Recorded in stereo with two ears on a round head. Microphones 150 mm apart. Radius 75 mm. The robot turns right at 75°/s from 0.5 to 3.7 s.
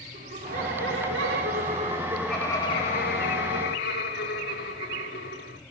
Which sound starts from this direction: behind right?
Laughter, at 0.1 s.